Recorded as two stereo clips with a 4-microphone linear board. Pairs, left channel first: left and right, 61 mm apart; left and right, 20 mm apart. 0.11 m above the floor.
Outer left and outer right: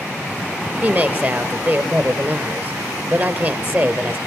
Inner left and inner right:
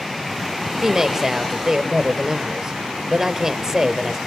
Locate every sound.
0.8 s a woman speaking: 35° right (ahead or behind), 2.0 m